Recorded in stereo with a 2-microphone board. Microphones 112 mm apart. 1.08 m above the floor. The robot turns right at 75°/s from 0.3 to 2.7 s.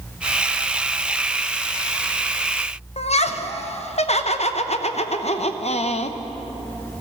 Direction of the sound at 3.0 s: 65° left (ahead or behind).